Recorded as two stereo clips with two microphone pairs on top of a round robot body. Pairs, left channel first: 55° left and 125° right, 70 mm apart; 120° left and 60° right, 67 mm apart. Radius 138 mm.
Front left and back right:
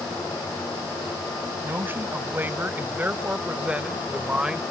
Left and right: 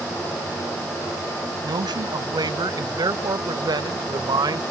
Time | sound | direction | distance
1.6 | a man speaking | 65° right | ?